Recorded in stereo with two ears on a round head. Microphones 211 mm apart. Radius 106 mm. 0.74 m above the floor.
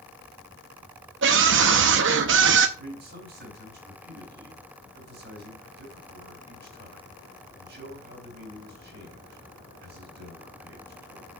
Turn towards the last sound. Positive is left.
turn(degrees=-45)  # may be behind; listen again after turning